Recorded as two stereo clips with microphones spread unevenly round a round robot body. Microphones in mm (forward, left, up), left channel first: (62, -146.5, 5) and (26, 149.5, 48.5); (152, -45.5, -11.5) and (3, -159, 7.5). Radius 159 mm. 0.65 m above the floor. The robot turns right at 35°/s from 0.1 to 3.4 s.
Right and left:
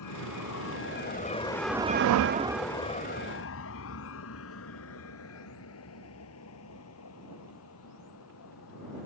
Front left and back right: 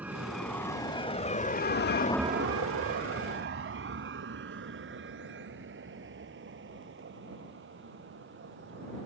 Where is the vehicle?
60° right; by 9.1 s 130° right.